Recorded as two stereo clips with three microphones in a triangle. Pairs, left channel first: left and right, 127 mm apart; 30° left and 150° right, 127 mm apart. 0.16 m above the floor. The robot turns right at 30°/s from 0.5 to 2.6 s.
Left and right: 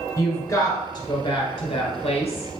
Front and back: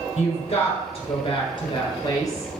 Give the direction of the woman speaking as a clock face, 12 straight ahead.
11 o'clock.